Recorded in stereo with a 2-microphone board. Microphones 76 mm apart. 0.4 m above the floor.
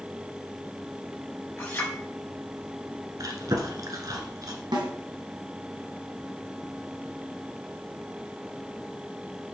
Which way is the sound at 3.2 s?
55° right (ahead or behind).